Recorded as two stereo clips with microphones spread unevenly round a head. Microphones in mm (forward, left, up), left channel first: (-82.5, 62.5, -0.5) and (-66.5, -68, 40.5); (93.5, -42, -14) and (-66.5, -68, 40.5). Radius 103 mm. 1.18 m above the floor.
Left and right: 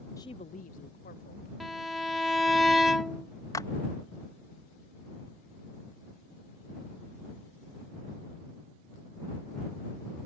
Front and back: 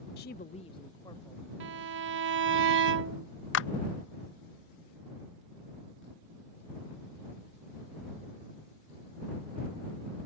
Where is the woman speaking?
25° left; by 1.5 s 90° left.